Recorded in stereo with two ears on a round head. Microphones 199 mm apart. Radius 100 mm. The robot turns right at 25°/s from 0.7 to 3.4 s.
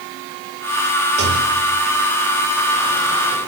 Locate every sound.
1.2 s a rattle: 30° right (ahead or behind), 7 m; by 3.5 s 25° left (ahead or behind), 7 m